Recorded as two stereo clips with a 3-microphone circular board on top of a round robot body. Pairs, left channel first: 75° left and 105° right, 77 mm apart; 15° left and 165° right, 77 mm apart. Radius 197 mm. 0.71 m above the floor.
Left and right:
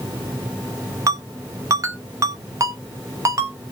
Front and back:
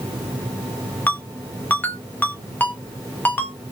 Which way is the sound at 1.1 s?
50° right.